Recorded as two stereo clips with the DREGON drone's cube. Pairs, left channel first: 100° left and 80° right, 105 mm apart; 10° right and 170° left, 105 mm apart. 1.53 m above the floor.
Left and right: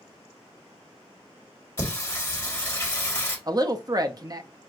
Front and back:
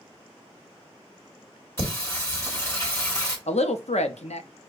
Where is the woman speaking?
25° right, 0.6 m.